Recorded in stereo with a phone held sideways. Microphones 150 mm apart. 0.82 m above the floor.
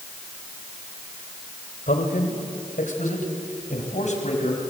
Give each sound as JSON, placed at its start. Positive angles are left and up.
{"t": 1.9, "sound": "a man speaking", "side_deg": 75, "distance_m": 3.0}